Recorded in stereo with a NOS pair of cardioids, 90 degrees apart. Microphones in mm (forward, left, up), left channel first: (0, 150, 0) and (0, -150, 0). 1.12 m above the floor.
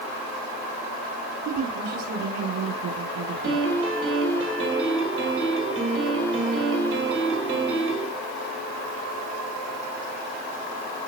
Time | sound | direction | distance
1.4 | a woman speaking | 65° right | 10 m
3.4 | a piano | 45° right | 6 m